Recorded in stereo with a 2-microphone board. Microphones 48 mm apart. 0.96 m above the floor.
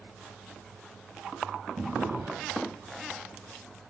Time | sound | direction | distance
1.8 | a drawer | 70° right (ahead or behind) | 2 m